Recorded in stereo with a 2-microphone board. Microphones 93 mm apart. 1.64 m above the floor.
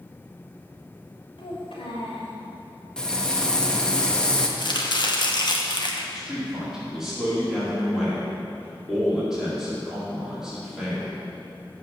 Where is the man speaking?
5° right (ahead or behind), 4 m.